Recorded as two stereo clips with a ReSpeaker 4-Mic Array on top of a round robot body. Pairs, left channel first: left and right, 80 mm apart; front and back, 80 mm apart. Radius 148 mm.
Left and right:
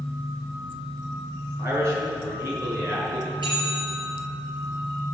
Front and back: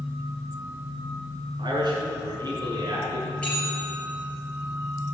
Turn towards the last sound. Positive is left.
turn(degrees=-75)